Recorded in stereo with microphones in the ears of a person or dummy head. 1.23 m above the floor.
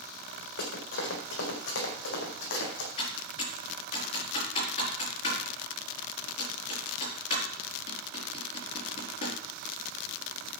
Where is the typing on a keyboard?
40° left (ahead or behind), 5.5 m.